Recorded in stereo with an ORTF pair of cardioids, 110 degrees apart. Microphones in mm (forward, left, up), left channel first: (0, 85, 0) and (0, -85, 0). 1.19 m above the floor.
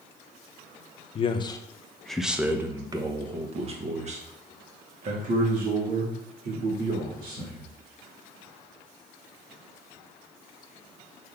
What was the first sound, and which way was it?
A man speaking, 35° left.